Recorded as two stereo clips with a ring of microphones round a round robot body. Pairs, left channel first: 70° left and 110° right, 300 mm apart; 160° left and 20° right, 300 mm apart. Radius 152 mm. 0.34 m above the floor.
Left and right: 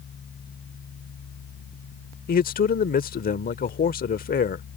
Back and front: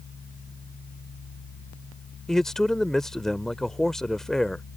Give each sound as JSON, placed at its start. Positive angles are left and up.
{"t": 2.3, "sound": "a man speaking", "azimuth_deg": 70}